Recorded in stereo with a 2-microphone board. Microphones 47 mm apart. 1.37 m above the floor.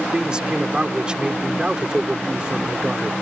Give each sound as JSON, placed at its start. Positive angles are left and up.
{"t": 0.1, "sound": "a man speaking", "side_deg": -20}